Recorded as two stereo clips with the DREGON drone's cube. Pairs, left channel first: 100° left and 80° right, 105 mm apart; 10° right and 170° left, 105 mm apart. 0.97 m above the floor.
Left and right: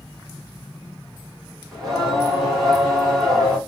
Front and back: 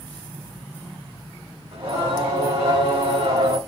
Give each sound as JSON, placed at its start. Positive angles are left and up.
{"t": 1.7, "sound": "singing", "azimuth_deg": -175, "distance_m": 2.5}